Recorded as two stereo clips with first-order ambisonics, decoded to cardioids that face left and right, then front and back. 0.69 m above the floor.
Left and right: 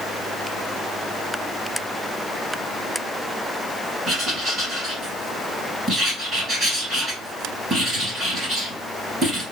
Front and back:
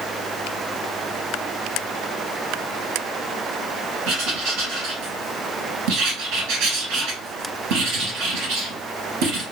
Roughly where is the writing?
Behind.